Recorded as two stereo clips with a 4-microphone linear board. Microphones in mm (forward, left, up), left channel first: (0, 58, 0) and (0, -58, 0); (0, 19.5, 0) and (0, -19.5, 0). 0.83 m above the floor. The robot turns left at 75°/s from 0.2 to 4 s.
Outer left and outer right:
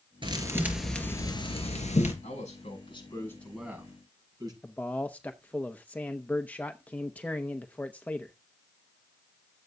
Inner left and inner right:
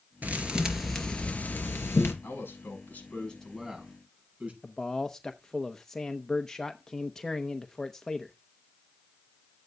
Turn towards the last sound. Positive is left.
turn(degrees=10)  # may be behind; listen again after turning